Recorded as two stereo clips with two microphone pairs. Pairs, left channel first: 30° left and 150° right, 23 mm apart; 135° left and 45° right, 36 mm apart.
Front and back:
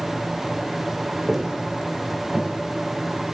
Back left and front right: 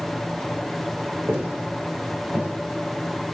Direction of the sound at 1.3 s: 65° right.